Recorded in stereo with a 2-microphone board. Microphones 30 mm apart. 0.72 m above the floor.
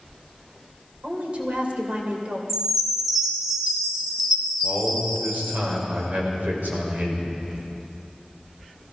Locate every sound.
1.0 s a woman speaking: 50° right (ahead or behind), 2.5 m
2.5 s a chime: 15° right (ahead or behind), 2.5 m
4.6 s a man speaking: 65° right (ahead or behind), 3.5 m